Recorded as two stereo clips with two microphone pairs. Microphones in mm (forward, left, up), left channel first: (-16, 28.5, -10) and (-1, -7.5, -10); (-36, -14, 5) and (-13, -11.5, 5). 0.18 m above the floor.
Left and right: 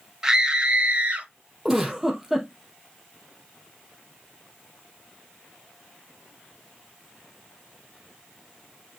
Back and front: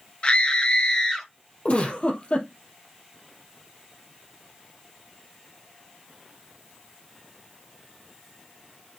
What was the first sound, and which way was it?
A scream, 140° right.